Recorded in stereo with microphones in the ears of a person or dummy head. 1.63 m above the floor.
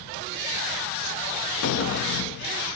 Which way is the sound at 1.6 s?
80° left.